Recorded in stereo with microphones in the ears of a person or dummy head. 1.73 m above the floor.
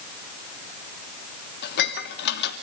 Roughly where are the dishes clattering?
Left.